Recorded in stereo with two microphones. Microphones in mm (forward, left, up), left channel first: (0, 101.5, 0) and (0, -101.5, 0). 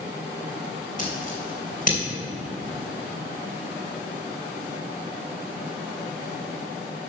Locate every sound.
1.0 s scissors: 45° left (ahead or behind), 3 m